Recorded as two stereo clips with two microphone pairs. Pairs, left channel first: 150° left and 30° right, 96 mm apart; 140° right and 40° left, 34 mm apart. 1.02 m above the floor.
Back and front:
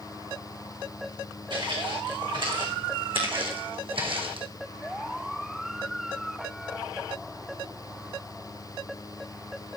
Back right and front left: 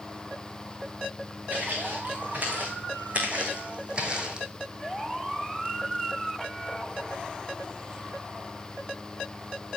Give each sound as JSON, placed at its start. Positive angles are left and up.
{"t": 1.5, "sound": "footsteps", "azimuth_deg": 0, "distance_m": 5.5}